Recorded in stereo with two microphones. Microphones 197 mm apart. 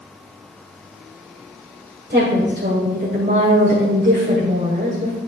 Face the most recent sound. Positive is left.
turn(degrees=-55)  # may be behind; listen again after turning